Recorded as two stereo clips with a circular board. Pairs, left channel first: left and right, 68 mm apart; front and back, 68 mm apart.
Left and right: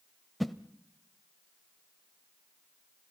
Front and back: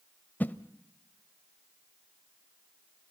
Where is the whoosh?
Straight ahead, 0.8 m.